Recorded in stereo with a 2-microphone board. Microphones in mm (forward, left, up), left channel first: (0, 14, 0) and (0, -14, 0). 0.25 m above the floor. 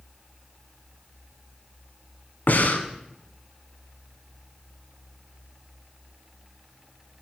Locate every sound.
2.5 s breathing: 65° left (ahead or behind), 1.0 m